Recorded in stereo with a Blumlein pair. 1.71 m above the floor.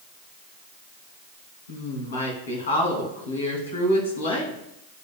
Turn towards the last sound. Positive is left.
turn(degrees=65)